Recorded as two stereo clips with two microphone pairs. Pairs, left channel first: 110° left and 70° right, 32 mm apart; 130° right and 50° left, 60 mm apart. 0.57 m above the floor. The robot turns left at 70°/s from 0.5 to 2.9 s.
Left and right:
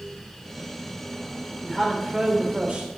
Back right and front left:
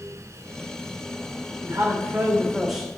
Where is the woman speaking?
40° left, 3 m; by 2.9 s 50° right, 3 m.